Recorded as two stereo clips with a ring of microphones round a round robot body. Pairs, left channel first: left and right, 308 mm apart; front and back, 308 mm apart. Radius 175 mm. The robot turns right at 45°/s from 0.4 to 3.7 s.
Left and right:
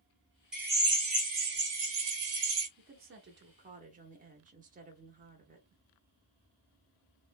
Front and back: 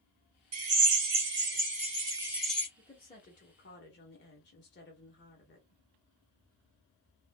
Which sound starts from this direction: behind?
A drill, at 0.5 s.